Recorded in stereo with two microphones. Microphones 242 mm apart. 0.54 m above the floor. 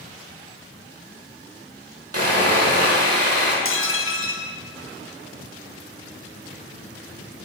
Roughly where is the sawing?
Right.